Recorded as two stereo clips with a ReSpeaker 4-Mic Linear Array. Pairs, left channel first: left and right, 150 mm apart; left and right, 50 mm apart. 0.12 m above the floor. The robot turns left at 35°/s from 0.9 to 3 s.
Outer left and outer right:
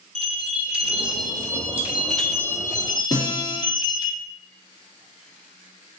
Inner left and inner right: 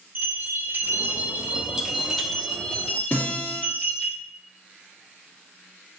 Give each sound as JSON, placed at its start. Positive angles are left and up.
{"t": 0.1, "sound": "a bell", "azimuth_deg": -135, "distance_m": 0.7}
{"t": 3.1, "sound": "a guitar", "side_deg": 30, "distance_m": 2.0}